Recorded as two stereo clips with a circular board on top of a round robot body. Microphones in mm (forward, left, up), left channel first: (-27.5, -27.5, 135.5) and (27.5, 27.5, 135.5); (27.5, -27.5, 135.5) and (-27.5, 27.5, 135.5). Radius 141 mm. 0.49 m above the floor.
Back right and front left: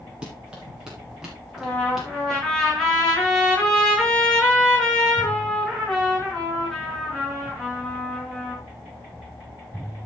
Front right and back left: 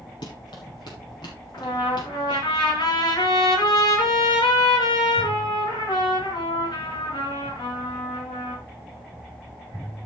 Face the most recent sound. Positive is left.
turn(degrees=-50)